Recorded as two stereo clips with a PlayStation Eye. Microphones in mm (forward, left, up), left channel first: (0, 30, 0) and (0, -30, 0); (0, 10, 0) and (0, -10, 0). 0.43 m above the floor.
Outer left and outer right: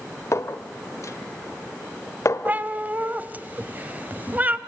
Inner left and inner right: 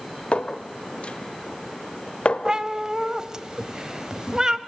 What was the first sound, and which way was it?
A clink, 55° left (ahead or behind).